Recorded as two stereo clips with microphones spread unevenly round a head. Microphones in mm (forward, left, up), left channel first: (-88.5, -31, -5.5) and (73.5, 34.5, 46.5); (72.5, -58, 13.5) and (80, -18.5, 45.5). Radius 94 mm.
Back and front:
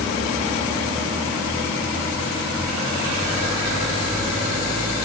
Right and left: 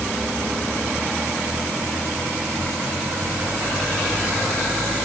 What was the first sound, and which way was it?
Only background noise.